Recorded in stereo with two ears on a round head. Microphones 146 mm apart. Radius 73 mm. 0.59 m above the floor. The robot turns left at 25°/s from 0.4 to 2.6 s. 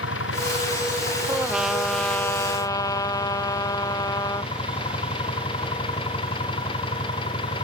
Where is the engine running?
85° left; by 7.6 s 30° left.